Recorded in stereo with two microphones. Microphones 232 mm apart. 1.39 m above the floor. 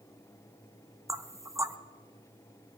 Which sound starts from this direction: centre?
Knocking, at 1.1 s.